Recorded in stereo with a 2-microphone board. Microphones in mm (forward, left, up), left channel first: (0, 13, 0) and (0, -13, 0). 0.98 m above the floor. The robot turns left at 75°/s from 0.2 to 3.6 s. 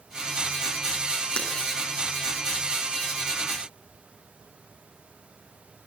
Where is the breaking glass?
45° left (ahead or behind), 8 m; by 1.5 s 35° left (ahead or behind), 8 m.